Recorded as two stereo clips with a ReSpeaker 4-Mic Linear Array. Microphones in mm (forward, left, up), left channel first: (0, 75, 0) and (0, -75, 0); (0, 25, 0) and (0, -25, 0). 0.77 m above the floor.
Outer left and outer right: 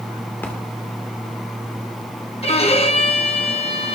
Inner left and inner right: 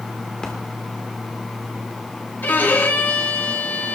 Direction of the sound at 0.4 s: 15° left (ahead or behind).